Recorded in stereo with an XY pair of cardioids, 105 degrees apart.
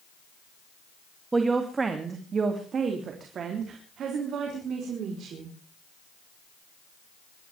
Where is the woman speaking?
25° right, 2.5 m; by 5.5 s 70° right, 4.5 m.